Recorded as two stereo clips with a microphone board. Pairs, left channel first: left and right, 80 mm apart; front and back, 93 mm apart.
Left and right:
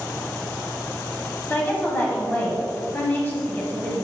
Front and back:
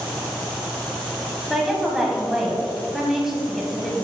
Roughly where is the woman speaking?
Left.